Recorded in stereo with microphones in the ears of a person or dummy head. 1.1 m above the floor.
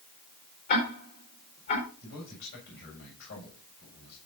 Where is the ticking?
55° left (ahead or behind), 5 m.